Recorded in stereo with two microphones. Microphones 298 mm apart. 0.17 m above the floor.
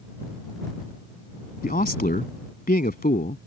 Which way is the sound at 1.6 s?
30° left (ahead or behind).